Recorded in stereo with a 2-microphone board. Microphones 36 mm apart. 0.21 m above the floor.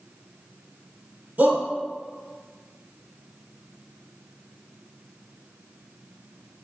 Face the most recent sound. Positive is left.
turn(degrees=-55)  # may be behind; listen again after turning